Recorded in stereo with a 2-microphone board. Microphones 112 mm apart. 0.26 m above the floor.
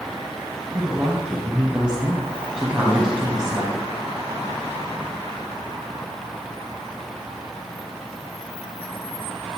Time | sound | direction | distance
0.7 | a woman speaking | 5° right (ahead or behind) | 1.8 m